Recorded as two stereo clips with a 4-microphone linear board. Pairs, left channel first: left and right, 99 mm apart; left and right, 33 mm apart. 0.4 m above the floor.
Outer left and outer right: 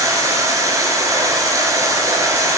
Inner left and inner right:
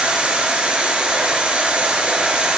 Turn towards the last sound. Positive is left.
turn(degrees=-35)  # may be behind; listen again after turning